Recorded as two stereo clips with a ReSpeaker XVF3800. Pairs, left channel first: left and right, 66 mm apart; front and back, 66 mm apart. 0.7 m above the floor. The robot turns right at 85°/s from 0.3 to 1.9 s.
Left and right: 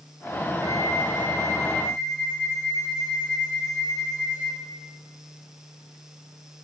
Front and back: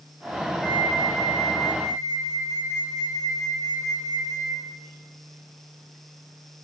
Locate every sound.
0.6 s a flute: 80° right, 4 m; by 4.7 s 30° left, 4 m